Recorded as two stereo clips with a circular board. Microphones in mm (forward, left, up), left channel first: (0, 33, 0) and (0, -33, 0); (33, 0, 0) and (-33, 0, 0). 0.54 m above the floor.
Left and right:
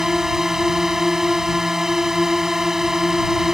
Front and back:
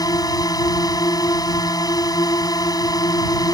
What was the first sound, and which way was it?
A drone, 10° right.